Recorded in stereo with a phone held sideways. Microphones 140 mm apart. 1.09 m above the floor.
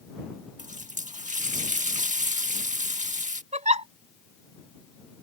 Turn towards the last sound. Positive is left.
turn(degrees=-55)  # may be behind; listen again after turning